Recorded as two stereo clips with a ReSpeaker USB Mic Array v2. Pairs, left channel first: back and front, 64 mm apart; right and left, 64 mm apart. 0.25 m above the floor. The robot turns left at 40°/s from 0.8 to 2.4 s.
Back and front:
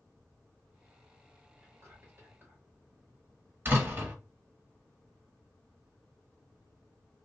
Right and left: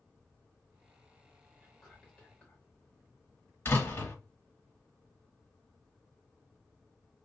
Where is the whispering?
5° left, 1.8 m; by 2.6 s 25° right, 1.8 m.